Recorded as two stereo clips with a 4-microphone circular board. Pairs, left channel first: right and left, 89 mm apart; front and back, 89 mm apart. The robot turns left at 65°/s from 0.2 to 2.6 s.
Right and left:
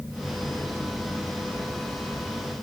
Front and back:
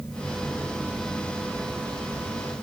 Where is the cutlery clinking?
I don't hear cutlery clinking.